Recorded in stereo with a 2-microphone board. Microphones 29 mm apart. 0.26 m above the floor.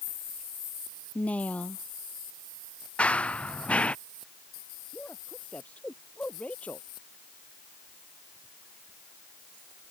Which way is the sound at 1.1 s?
55° left (ahead or behind).